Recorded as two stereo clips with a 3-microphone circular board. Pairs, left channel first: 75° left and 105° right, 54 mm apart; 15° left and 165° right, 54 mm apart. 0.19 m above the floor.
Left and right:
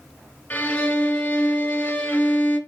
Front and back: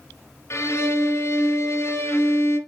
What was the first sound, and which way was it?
A violin, 20° left.